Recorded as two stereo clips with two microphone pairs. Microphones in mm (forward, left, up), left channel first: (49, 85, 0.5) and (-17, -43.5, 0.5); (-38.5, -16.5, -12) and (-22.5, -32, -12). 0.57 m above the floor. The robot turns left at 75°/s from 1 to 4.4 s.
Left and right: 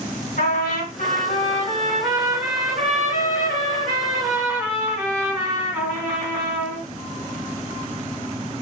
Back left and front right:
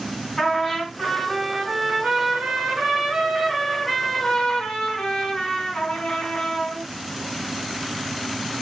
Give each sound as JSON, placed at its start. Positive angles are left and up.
{"t": 0.4, "sound": "a trumpet", "azimuth_deg": 65, "distance_m": 1.5}